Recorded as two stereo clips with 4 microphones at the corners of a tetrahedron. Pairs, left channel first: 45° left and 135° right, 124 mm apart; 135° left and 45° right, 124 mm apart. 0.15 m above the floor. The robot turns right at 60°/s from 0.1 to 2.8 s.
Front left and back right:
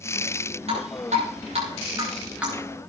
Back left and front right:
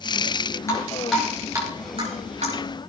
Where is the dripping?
160° right, 7.5 m; by 2.5 s 50° right, 7.5 m.